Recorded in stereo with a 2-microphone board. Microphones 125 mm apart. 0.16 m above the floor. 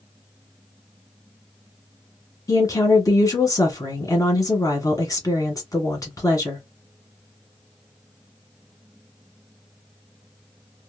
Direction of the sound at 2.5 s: 30° left (ahead or behind).